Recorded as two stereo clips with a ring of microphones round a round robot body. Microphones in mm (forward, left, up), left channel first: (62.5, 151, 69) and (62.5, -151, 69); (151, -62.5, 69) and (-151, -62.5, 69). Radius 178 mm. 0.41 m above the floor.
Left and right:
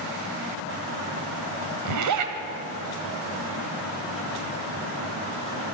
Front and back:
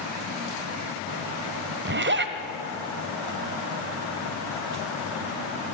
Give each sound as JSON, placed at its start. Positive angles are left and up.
{"t": 1.9, "sound": "a zipper", "azimuth_deg": -125, "distance_m": 1.6}